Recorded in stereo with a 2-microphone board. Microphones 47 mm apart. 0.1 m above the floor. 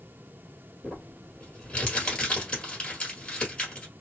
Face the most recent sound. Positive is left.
turn(degrees=20)  # may be behind; listen again after turning